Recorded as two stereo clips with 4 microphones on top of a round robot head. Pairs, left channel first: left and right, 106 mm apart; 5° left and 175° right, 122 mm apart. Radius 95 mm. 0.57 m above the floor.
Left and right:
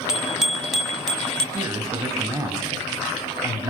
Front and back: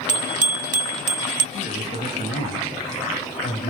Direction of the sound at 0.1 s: 175° right.